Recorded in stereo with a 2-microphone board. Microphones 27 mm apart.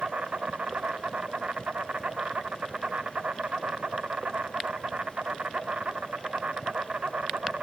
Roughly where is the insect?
Right.